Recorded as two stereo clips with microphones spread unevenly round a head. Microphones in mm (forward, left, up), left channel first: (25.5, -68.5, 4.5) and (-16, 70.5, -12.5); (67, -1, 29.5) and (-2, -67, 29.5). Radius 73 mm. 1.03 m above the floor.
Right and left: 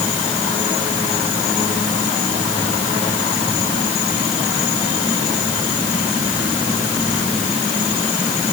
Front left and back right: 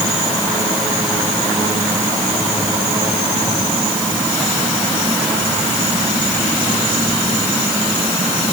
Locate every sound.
Only background noise.